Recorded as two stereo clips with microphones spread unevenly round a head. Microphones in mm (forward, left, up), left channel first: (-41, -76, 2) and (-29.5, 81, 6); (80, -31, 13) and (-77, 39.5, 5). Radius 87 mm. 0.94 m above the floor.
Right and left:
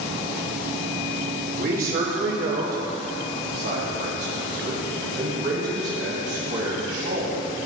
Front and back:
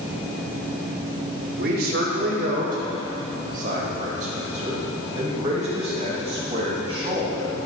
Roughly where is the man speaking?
Behind left.